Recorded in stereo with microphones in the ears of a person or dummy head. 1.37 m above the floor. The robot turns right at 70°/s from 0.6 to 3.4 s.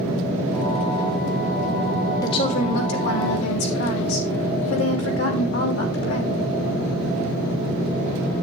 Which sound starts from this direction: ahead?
A woman speaking, at 2.2 s.